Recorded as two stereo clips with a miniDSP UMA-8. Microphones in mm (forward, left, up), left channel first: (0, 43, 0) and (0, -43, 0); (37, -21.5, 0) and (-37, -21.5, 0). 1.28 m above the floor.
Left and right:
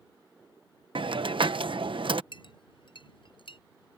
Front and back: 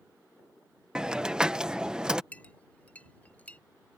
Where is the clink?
70° left.